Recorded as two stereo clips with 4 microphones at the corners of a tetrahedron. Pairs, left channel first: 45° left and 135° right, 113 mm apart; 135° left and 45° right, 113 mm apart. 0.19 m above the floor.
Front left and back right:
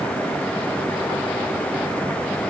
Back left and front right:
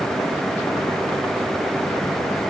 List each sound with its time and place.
Only background noise.